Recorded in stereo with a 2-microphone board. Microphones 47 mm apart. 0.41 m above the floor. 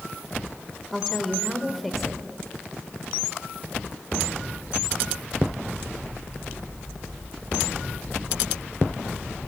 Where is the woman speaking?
Centre (ahead or behind), 1.3 m.